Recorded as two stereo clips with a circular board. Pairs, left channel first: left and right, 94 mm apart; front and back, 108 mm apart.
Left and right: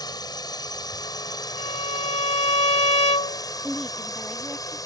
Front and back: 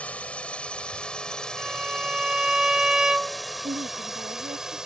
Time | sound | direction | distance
0.0 | a drone | 75° left | ?
1.6 | a violin | 95° left | ?
3.6 | a woman speaking | straight behind | ?